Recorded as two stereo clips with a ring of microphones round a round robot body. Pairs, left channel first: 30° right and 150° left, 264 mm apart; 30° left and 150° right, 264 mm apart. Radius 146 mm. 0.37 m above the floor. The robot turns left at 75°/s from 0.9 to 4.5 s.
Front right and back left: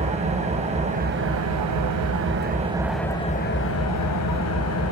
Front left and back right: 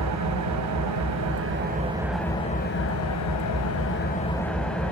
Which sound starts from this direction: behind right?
An engine running, at 0.0 s.